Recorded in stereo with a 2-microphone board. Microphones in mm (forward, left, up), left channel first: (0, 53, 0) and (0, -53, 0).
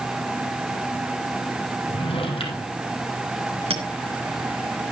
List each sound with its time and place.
1.9 s a drawer: 60° left (ahead or behind), 3.5 m
3.7 s a clink: 60° right (ahead or behind), 3.5 m